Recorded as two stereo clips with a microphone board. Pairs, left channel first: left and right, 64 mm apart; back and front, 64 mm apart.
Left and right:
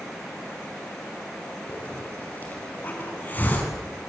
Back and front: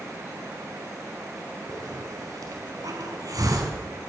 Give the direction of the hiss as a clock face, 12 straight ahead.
11 o'clock.